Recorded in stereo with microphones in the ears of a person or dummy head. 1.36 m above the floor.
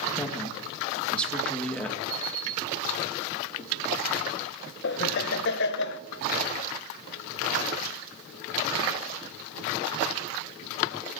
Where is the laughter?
60° left (ahead or behind), 1.0 m.